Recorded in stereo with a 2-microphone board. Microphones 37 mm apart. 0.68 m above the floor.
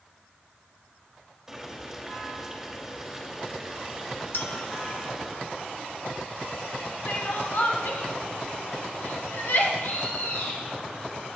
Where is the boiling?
10° right (ahead or behind), 2.5 m.